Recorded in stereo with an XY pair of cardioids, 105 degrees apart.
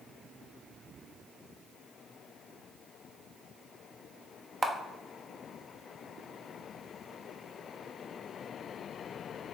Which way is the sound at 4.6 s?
25° right.